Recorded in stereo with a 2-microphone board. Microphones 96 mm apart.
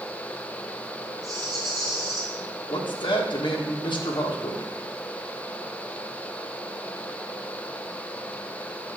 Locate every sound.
1.2 s a rattle: 45° right (ahead or behind), 4.5 m
2.7 s a man speaking: 60° left (ahead or behind), 1.8 m